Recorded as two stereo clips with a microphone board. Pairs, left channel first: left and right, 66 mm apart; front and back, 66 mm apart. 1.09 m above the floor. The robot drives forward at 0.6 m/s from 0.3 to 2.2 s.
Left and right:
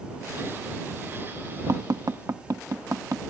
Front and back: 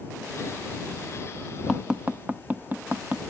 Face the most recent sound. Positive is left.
turn(degrees=-115)